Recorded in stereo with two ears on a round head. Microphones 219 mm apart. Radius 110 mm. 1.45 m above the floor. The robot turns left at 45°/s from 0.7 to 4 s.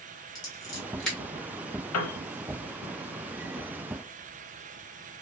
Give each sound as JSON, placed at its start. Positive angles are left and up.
{"t": 0.3, "sound": "scissors", "side_deg": 15, "distance_m": 1.7}
{"t": 1.9, "sound": "a piano", "side_deg": 65, "distance_m": 0.6}